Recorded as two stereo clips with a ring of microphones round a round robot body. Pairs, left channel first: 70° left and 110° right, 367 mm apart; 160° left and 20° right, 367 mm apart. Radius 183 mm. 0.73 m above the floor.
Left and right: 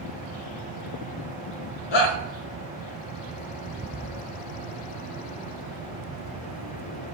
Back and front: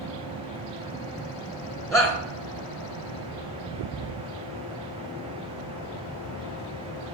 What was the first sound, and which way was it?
A shout, 75° left.